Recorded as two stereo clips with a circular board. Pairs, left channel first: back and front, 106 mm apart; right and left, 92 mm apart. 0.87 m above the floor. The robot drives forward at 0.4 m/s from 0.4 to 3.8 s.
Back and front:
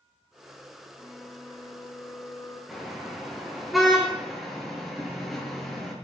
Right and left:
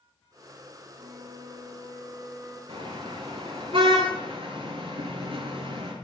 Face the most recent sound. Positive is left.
turn(degrees=90)